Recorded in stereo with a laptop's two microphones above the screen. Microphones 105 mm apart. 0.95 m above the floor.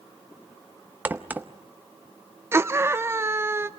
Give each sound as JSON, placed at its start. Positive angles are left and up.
{"t": 1.1, "sound": "a crack", "side_deg": -15, "distance_m": 0.6}
{"t": 2.5, "sound": "a scream", "side_deg": -25, "distance_m": 0.9}